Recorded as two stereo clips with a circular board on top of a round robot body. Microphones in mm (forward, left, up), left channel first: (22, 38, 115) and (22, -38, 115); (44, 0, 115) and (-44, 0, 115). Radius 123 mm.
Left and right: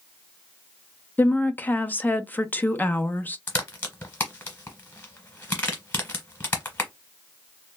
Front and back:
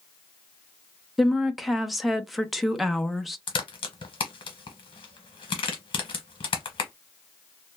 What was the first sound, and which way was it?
A woman speaking, 95° left.